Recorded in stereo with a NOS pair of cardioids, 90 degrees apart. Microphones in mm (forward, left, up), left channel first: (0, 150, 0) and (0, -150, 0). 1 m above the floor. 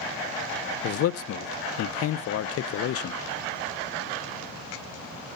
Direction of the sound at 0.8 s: 55° left.